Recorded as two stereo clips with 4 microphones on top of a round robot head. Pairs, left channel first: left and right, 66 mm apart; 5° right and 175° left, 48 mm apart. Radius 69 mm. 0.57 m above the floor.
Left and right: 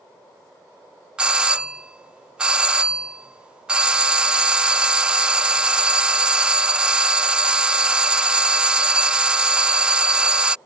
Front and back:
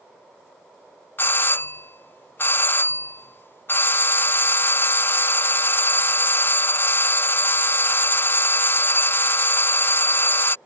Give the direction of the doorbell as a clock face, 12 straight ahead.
1 o'clock.